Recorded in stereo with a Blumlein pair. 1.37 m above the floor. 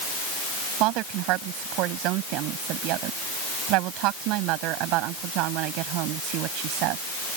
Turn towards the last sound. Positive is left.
turn(degrees=-40)